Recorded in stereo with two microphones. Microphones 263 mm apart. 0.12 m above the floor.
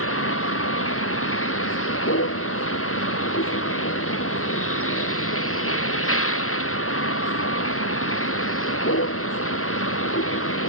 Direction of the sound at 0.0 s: 60° left (ahead or behind).